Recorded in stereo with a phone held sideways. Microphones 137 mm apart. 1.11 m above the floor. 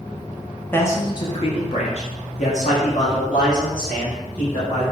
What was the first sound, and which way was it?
A man speaking, 15° left (ahead or behind).